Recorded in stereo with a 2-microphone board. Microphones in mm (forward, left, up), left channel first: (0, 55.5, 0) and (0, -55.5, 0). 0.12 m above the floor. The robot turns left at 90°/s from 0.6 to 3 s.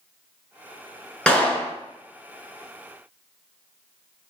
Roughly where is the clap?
Centre.